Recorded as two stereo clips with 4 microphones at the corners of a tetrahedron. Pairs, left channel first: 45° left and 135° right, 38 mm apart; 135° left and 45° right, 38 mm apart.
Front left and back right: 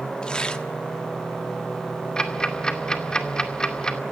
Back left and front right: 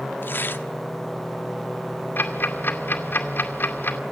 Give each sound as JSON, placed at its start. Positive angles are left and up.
{"t": 0.2, "sound": "tearing paper", "azimuth_deg": 110, "distance_m": 1.2}
{"t": 2.2, "sound": "ticking", "azimuth_deg": 115, "distance_m": 2.0}